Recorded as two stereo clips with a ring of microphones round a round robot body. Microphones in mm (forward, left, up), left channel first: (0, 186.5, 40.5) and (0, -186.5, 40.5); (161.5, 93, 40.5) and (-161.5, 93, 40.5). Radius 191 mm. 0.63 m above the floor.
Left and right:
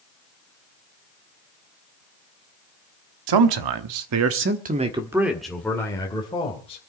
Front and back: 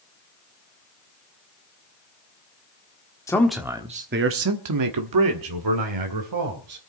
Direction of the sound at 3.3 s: 80° right.